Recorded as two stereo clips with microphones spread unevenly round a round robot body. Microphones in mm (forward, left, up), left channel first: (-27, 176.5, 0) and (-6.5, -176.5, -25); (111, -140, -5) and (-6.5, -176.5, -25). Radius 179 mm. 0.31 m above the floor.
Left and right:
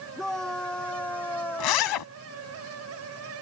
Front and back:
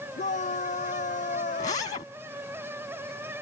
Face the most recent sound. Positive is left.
turn(degrees=70)